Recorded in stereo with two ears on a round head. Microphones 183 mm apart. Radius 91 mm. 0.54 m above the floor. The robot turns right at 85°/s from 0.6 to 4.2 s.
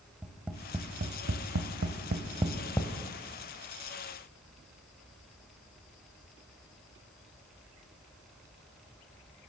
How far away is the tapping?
About 1.1 m.